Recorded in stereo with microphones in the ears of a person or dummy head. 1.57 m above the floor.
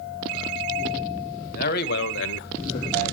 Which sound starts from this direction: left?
A man speaking, at 1.5 s.